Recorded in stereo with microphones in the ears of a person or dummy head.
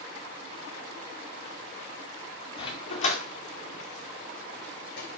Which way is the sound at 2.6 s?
35° left (ahead or behind).